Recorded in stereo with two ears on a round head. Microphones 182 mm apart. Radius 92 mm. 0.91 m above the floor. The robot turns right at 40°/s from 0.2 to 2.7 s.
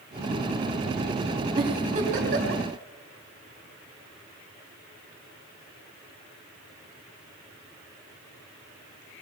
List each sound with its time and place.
1.6 s a giggle: 25° right (ahead or behind), 3 m; by 2.6 s 65° right (ahead or behind), 3 m